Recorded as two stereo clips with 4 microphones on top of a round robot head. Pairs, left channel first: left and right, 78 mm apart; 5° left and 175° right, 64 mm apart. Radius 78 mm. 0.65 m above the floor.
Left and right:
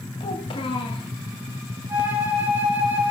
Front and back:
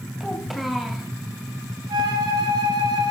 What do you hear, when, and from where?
0.2 s a child speaking: 100° left, 2.5 m
1.9 s a flute: 165° right, 3 m